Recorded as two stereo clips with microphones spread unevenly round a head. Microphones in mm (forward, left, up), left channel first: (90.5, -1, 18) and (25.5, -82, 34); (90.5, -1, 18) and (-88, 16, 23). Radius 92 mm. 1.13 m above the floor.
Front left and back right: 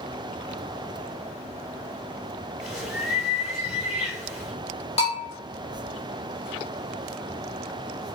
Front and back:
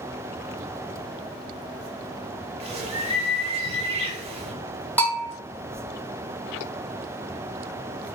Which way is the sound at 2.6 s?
135° left.